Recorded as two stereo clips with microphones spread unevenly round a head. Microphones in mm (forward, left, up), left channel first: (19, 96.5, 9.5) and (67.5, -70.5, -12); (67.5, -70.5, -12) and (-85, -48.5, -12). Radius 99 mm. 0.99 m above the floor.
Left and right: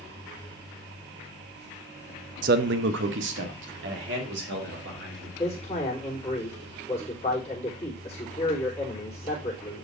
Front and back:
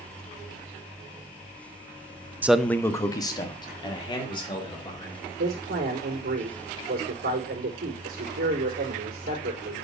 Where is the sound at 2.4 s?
110° right, 0.5 m; by 5.3 s 65° right, 3.5 m.